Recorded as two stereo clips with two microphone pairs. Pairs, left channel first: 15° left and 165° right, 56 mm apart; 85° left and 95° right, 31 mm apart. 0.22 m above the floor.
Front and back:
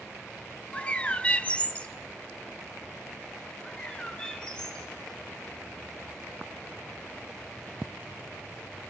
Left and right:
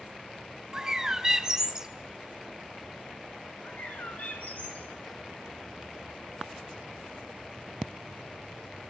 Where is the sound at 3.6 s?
90° left, 2.5 m.